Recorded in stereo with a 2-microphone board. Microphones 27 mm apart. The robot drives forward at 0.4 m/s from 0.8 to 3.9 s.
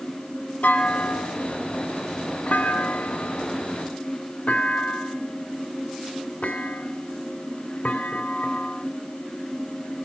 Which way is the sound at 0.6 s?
85° left.